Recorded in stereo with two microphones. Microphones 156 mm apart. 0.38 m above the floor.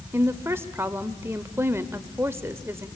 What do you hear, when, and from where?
0.1 s a woman speaking: 15° right (ahead or behind), 0.9 m